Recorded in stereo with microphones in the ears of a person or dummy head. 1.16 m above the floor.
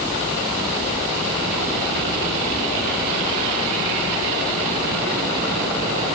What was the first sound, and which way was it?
Only background noise.